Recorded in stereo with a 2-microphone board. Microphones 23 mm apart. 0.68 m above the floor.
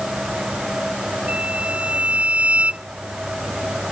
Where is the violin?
65° right (ahead or behind).